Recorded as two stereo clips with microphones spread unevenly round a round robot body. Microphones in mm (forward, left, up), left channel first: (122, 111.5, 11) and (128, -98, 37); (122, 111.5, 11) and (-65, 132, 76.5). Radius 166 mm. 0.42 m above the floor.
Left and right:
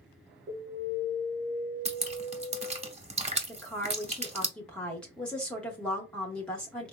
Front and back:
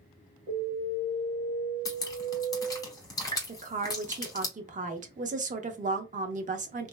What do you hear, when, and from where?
0.5 s an alarm: 140° right, 1.2 m
1.9 s dripping: 35° right, 0.9 m
3.5 s a woman speaking: 145° left, 0.7 m